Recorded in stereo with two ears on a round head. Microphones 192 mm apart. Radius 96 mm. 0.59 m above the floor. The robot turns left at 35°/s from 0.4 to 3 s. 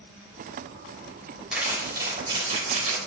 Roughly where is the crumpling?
Ahead.